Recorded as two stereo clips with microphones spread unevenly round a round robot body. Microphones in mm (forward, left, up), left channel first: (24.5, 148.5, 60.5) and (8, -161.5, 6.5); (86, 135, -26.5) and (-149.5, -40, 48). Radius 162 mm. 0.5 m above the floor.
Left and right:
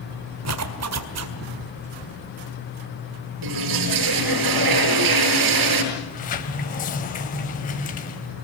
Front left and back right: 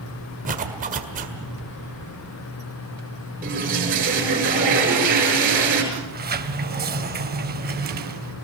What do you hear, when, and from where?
0.5 s a zipper: 70° right, 1.9 m
3.4 s a toilet flushing: 80° right, 7 m
5.9 s a sliding door: 155° left, 1.7 m